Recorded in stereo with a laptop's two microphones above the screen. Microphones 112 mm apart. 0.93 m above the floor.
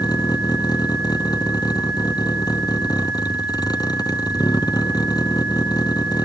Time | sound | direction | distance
0.0 | a vehicle | 35° left (ahead or behind) | ?